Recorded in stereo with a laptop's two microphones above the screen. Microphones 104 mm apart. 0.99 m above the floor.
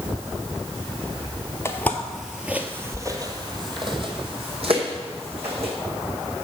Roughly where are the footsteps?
Left.